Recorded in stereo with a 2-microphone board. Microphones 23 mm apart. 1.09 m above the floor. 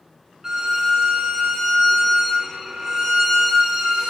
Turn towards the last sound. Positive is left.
turn(degrees=-25)  # may be behind; listen again after turning